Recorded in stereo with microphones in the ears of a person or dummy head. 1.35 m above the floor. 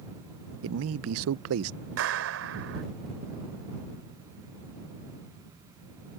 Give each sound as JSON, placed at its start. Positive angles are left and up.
{"t": 0.6, "sound": "a man speaking", "side_deg": -80}
{"t": 2.0, "sound": "a clap", "side_deg": -65}